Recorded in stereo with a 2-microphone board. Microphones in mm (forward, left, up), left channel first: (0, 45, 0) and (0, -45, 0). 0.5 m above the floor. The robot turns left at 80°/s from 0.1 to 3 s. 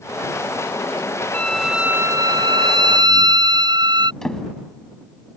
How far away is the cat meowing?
No cat meowing in this recording.